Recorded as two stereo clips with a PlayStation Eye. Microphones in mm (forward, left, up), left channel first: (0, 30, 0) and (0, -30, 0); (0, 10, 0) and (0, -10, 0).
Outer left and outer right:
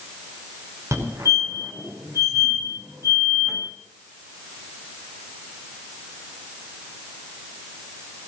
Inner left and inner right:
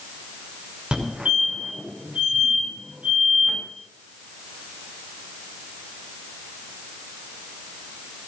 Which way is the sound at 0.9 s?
55° right (ahead or behind).